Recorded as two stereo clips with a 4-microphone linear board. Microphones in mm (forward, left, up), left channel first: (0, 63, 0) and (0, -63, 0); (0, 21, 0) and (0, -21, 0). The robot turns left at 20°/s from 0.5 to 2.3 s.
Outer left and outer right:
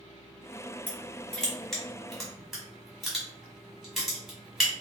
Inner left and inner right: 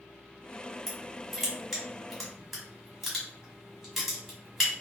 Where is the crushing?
10° left (ahead or behind), 1.4 m; by 4.7 s centre (ahead or behind), 1.4 m.